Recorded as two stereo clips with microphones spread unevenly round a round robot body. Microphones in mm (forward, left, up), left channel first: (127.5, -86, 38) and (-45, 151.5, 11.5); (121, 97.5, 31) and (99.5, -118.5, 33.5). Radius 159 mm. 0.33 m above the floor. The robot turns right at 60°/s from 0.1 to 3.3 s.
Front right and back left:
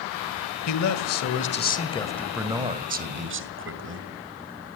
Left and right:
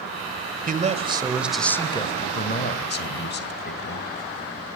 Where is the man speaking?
60° right, 1.8 m; by 4.1 s 100° left, 1.8 m.